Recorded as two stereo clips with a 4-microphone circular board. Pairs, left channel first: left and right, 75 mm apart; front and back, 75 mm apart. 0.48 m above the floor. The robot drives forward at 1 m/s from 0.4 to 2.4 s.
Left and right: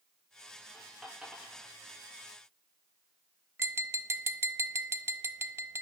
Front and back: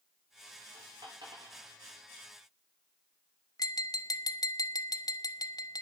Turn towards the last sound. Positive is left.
turn(degrees=-35)